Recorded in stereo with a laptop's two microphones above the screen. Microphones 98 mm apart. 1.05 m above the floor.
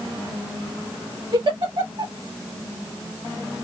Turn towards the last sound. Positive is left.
turn(degrees=-60)  # may be behind; listen again after turning